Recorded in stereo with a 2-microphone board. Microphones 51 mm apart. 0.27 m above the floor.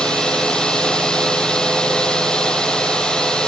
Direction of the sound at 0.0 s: 15° left (ahead or behind).